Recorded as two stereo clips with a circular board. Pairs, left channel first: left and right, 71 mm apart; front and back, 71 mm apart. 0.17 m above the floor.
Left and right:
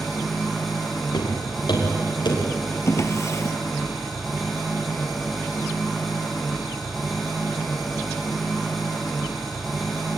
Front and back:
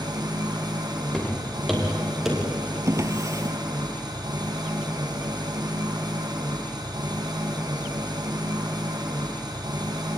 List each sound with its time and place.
0.0 s an engine running: straight behind, 5.5 m
1.1 s footsteps: 80° left, 8 m; by 2.8 s 90° left, 8.5 m
2.9 s a drawer: 135° left, 1.4 m